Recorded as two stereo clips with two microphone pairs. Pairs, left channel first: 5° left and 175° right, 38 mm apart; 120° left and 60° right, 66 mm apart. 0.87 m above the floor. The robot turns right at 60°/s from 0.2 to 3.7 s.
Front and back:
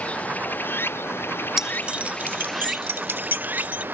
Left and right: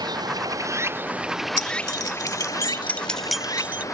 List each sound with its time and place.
0.0 s running water: 50° right; by 4.0 s 160° left
1.6 s keys jangling: 105° left; by 3.9 s 125° right